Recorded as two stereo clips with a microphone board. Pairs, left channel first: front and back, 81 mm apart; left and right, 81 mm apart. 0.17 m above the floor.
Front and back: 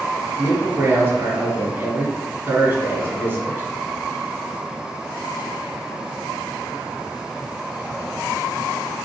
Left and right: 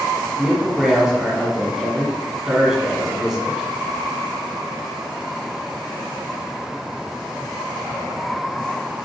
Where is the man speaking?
170° right, 1.4 m.